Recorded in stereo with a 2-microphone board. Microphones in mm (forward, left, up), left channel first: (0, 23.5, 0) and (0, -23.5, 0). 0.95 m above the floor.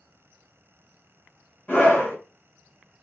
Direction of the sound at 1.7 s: 40° left (ahead or behind).